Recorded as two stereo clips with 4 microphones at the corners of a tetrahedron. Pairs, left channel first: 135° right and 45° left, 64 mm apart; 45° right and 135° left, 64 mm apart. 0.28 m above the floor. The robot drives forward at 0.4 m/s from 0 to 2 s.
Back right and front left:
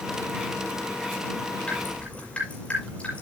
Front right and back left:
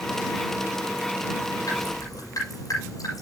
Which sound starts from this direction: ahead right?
Dripping, at 1.7 s.